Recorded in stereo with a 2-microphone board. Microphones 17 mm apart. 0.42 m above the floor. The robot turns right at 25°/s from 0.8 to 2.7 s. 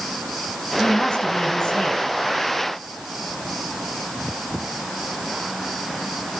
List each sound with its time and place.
0.8 s a woman speaking: 85° left, 4 m; by 2.0 s 115° left, 4 m